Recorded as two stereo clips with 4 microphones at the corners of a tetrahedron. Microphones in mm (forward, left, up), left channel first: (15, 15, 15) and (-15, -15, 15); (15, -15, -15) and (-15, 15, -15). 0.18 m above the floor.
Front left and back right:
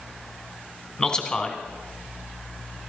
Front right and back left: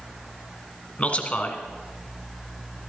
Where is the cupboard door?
I don't hear a cupboard door.